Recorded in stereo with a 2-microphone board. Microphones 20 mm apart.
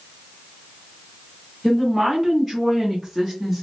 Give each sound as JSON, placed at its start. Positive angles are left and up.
{"t": 1.6, "sound": "a woman speaking", "side_deg": 0, "distance_m": 1.3}